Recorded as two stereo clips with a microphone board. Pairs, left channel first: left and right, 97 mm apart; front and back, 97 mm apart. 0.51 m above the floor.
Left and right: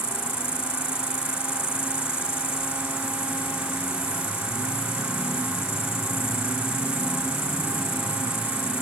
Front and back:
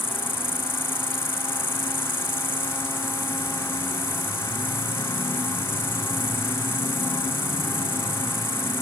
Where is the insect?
70° left, 1.9 m.